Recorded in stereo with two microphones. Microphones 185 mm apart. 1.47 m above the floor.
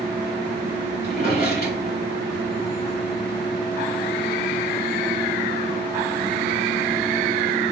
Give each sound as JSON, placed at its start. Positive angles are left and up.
{"t": 1.0, "sound": "a drawer", "side_deg": 50, "distance_m": 1.8}